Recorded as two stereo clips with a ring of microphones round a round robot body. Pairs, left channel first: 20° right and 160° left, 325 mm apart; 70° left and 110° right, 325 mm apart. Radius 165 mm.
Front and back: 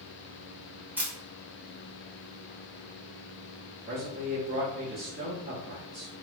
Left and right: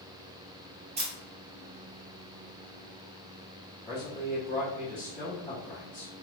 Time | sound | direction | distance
1.0 | a camera shutter | 130° right | 1.0 m
3.9 | a man speaking | 125° left | 1.4 m